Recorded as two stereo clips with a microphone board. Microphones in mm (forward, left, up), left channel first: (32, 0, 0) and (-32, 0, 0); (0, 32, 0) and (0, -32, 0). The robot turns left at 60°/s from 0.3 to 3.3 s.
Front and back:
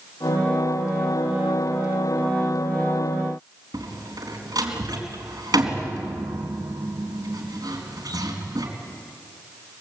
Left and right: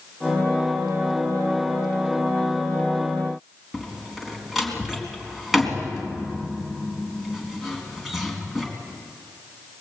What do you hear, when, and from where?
3.7 s a door slam: straight behind, 4 m